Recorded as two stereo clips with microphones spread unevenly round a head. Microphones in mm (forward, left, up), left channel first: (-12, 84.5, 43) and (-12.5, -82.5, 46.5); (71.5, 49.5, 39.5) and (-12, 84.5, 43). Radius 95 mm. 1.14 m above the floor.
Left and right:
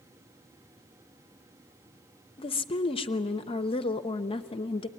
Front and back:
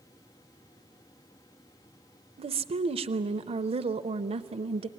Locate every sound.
2.4 s a woman speaking: 150° left, 0.6 m